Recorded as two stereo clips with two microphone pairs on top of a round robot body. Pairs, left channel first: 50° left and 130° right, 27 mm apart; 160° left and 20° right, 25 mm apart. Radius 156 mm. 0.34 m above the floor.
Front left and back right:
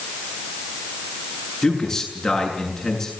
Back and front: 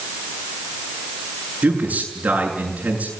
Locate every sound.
1.6 s a man speaking: 25° right, 7 m